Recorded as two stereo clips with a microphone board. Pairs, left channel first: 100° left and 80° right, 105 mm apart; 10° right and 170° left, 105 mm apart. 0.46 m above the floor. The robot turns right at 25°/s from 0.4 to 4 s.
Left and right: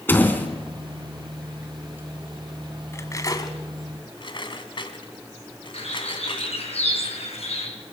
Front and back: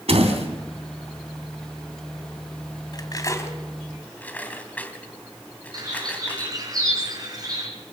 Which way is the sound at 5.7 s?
120° left.